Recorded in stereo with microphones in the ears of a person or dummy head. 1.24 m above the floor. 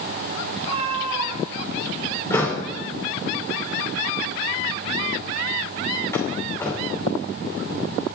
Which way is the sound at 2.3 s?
15° left (ahead or behind).